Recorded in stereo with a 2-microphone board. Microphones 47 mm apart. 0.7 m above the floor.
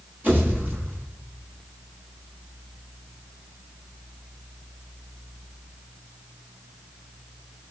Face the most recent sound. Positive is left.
turn(degrees=-40)  # may be behind; listen again after turning